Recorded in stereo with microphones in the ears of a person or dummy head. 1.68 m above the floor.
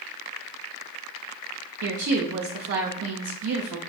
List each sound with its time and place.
1.8 s a woman speaking: 70° right (ahead or behind), 0.5 m